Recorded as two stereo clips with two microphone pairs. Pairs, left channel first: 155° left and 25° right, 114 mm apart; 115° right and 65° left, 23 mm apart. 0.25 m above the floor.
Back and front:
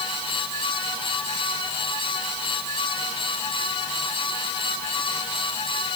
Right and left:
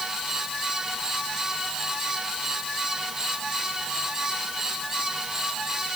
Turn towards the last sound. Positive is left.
No sound to turn to.